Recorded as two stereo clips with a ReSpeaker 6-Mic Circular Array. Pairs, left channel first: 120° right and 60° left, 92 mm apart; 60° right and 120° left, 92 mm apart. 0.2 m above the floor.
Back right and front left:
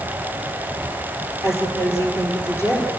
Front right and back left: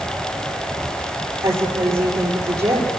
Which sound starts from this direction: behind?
A woman speaking, at 1.4 s.